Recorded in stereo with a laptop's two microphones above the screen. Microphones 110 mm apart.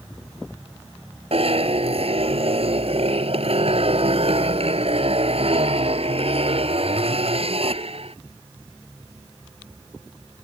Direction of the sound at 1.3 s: 65° right (ahead or behind).